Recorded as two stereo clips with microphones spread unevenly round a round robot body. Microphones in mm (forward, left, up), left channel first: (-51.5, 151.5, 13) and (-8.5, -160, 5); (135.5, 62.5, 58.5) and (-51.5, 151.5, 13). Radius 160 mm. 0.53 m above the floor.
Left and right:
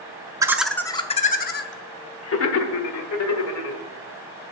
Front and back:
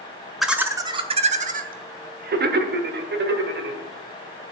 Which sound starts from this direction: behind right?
Laughter, at 0.4 s.